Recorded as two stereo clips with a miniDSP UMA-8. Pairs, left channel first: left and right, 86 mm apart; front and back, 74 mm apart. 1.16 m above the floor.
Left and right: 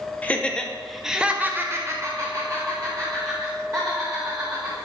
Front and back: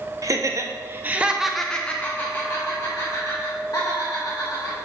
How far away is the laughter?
About 1.0 m.